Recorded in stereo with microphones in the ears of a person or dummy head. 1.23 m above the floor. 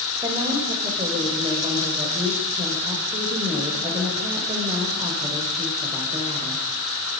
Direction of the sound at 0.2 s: 20° right (ahead or behind).